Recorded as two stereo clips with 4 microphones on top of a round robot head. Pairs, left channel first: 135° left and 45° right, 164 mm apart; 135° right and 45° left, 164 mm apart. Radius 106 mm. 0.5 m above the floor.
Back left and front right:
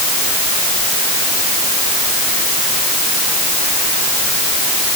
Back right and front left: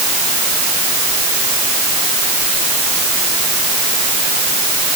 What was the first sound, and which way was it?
Only background noise.